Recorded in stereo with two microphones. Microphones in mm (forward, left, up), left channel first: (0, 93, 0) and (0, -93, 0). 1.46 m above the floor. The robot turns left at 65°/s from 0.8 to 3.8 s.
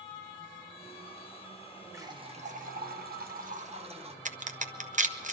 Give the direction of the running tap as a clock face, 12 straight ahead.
1 o'clock.